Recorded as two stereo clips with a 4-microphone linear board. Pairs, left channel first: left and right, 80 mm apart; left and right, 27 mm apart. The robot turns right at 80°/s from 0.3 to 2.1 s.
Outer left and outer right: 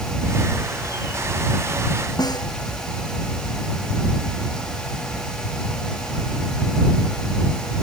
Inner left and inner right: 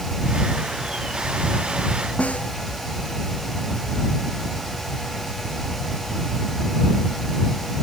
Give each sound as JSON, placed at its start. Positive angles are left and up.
{"t": 2.2, "sound": "a snare drum", "side_deg": 55}